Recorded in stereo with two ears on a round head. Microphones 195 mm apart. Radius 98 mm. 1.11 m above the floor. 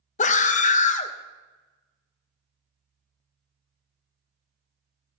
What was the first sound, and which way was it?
A scream, 35° left (ahead or behind).